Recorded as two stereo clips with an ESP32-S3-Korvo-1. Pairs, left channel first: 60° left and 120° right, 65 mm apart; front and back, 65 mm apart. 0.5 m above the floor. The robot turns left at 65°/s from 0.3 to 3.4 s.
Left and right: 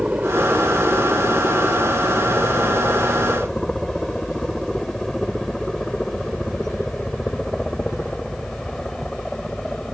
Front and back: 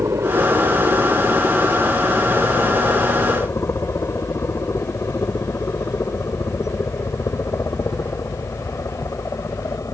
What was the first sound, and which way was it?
A helicopter, 175° left.